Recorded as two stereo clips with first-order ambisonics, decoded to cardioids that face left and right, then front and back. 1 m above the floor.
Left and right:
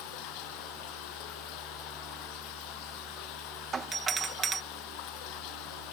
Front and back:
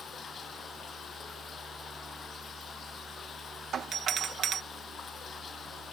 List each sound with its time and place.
0.0 s running water: 70° left
3.7 s a doorbell: 145° right